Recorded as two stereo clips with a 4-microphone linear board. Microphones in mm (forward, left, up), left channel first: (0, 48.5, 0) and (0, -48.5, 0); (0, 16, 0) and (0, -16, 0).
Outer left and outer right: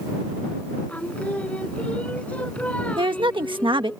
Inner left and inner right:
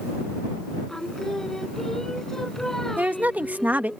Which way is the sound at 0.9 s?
15° left (ahead or behind).